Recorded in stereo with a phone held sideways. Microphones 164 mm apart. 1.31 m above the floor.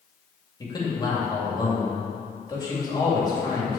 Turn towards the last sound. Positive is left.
turn(degrees=25)  # may be behind; listen again after turning